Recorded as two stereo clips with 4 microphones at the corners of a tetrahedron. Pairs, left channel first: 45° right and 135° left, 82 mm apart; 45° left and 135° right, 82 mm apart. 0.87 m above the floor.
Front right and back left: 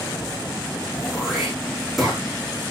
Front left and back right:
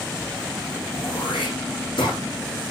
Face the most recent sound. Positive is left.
turn(degrees=45)